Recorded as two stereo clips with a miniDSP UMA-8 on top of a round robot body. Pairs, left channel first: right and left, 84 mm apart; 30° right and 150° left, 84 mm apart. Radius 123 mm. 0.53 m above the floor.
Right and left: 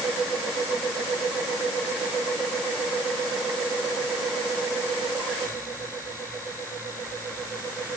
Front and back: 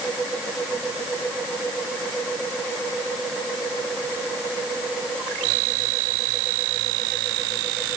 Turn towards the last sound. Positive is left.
No sound to turn to.